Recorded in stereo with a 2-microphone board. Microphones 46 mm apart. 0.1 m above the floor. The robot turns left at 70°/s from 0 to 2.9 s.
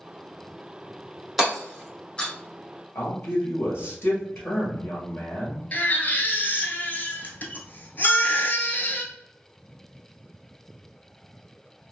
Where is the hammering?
Centre (ahead or behind), 1.5 m; by 2.3 s 25° left (ahead or behind), 1.5 m.